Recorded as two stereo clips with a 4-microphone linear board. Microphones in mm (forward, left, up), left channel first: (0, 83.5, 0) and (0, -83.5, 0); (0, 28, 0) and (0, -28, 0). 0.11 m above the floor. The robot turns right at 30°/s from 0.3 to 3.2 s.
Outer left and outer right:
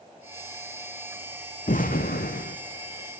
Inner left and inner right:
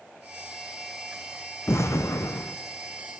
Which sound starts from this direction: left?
An explosion, at 1.7 s.